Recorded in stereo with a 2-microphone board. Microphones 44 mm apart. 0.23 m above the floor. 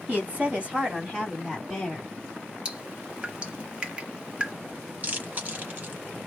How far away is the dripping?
About 0.9 m.